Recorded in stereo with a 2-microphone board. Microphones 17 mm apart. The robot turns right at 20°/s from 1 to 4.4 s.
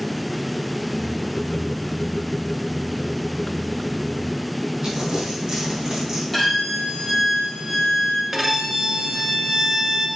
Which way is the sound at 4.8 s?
50° right (ahead or behind).